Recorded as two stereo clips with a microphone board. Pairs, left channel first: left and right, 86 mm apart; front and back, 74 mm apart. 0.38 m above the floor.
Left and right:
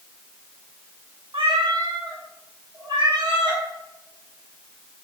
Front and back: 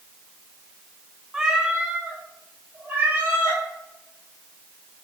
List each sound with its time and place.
1.3 s a cat meowing: 100° right, 0.6 m; by 3.6 s 115° right, 1.7 m